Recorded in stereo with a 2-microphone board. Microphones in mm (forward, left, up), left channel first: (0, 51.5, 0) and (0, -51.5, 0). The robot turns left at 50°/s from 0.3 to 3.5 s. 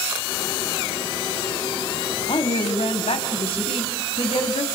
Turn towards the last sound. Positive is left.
turn(degrees=65)